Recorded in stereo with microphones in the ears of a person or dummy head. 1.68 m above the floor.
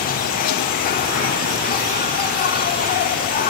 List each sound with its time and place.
0.0 s an insect: 40° left (ahead or behind), 1.6 m